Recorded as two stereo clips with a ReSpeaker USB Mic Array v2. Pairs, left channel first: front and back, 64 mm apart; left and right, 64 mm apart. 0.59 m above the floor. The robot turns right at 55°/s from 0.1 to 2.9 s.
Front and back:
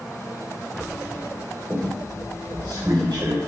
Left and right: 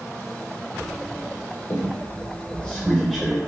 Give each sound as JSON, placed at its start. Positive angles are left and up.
{"t": 1.7, "sound": "a squeak", "azimuth_deg": 115, "distance_m": 0.9}